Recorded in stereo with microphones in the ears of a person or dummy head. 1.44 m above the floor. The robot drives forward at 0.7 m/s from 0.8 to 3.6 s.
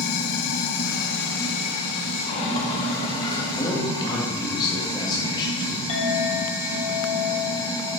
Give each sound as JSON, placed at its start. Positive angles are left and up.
{"t": 0.0, "sound": "running water", "side_deg": 75, "distance_m": 1.2}
{"t": 3.6, "sound": "a man speaking", "side_deg": 20, "distance_m": 2.0}
{"t": 5.9, "sound": "a clink", "side_deg": 30, "distance_m": 2.5}